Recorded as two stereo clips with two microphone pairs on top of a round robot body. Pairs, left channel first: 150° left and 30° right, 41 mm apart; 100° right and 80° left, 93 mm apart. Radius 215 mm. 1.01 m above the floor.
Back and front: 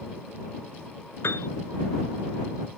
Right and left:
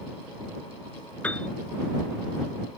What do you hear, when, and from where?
1.2 s a piano: 175° right